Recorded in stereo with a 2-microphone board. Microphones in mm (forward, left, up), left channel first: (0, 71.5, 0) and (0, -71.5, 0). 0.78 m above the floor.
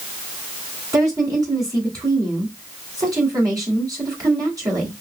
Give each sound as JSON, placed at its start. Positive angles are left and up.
{"t": 0.9, "sound": "a woman speaking", "side_deg": -25, "distance_m": 2.5}